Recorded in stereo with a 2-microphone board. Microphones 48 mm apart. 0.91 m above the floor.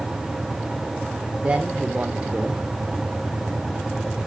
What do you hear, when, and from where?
1.4 s a man speaking: 25° right (ahead or behind), 2.5 m